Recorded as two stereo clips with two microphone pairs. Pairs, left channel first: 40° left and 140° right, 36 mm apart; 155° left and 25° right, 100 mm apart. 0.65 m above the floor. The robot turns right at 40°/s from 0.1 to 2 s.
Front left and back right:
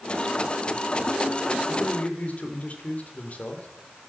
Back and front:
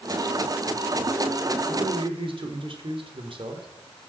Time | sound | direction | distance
1.7 | a man speaking | 15° right | 2.5 m